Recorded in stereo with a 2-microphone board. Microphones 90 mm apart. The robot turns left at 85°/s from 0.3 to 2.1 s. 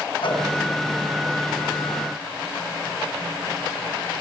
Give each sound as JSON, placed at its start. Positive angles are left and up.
{"t": 0.2, "sound": "a whoosh", "side_deg": 75, "distance_m": 3.0}